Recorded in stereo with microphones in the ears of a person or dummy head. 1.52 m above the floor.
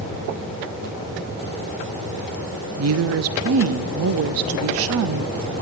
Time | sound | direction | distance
2.8 | a woman speaking | 70° right (ahead or behind) | 0.8 m